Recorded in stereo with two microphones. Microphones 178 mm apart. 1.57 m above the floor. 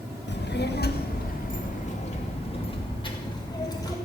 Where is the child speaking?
75° left (ahead or behind), 1.8 m; by 4.0 s 20° left (ahead or behind), 3.5 m.